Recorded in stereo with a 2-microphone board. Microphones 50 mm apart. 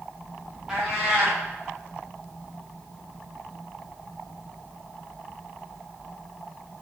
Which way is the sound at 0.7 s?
10° right (ahead or behind).